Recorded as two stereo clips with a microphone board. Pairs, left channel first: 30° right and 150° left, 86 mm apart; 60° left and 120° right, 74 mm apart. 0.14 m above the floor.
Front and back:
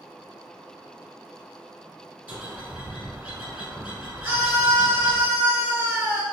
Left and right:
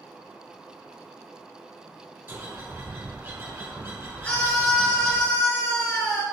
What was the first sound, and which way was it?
A bird, 150° right.